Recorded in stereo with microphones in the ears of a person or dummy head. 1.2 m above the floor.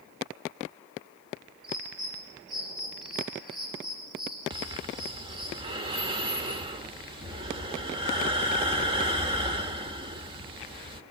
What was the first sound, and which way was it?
A bird, 25° right (ahead or behind).